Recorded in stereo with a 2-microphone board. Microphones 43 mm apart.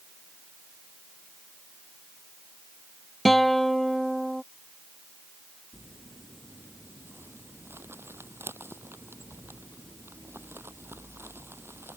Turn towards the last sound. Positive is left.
turn(degrees=-70)  # may be behind; listen again after turning